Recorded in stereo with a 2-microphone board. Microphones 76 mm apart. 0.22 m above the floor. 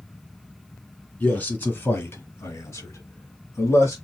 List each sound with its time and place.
1.2 s a man speaking: 20° left (ahead or behind), 2 m; by 4.0 s 40° left (ahead or behind), 1.7 m